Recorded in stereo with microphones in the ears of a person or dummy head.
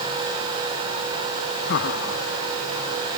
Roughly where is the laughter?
Left.